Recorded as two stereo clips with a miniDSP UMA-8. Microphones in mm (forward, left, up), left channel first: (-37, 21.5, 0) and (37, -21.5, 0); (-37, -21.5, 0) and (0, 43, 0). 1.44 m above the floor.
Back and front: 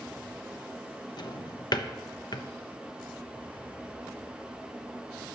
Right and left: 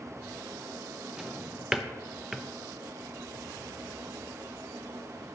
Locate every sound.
1.2 s a drawer: 140° left, 0.8 m